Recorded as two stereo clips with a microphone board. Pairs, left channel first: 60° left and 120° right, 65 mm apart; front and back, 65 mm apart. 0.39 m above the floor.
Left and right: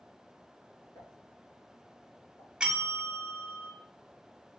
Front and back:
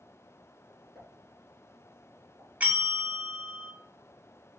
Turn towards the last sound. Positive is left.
turn(degrees=-175)